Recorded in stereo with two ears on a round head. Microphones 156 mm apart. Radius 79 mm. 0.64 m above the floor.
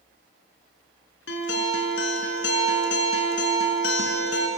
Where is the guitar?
80° left, 2.5 m.